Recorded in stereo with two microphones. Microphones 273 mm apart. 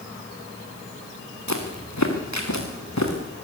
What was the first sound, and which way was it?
Footsteps, 85° left.